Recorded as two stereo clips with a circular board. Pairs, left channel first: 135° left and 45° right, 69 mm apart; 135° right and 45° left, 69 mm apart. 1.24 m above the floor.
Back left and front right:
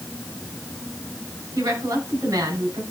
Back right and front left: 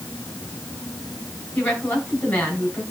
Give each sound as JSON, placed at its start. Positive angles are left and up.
{"t": 1.6, "sound": "a woman speaking", "azimuth_deg": -75, "distance_m": 6.0}